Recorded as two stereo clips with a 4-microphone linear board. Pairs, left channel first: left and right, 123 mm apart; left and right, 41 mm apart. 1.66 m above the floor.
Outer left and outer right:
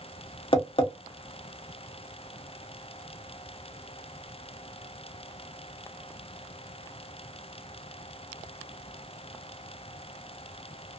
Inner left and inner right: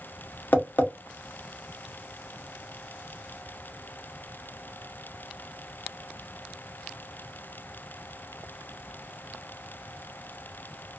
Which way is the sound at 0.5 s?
45° left (ahead or behind).